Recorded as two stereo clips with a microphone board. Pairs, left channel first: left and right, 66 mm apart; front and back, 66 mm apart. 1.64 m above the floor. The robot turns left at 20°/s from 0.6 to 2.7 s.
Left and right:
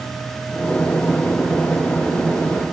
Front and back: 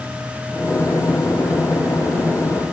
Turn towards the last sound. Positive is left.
No sound to turn to.